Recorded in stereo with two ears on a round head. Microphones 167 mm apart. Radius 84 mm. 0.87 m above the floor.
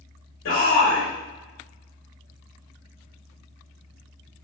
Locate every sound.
0.5 s a shout: 70° left (ahead or behind), 2.5 m